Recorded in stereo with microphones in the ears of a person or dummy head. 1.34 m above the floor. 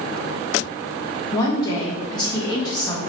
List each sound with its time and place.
1.3 s a woman speaking: 20° left (ahead or behind), 0.9 m